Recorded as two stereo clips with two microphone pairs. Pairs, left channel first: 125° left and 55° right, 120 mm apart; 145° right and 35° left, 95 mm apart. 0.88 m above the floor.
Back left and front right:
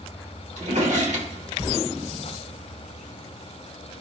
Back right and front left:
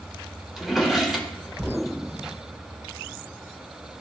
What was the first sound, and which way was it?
A drawer, 50° right.